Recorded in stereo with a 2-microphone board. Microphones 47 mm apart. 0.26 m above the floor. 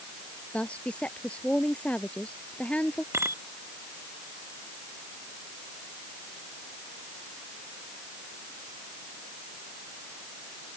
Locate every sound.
0.5 s a woman speaking: 25° left (ahead or behind)
3.1 s a bicycle bell: 65° right (ahead or behind)